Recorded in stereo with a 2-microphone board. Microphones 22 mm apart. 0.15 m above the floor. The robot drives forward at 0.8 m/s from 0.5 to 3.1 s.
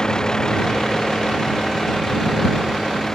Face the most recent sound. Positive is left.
turn(degrees=20)  # may be behind; listen again after turning